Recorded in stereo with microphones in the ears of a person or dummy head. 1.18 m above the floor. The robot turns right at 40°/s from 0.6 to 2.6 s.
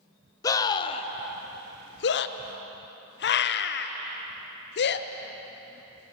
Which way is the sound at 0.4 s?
20° left (ahead or behind).